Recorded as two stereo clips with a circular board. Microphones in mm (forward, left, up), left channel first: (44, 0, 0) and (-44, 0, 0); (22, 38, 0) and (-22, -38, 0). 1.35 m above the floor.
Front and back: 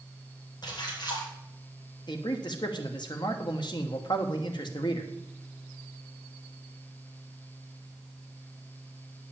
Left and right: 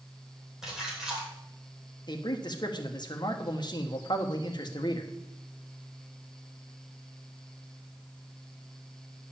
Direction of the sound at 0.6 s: 35° right.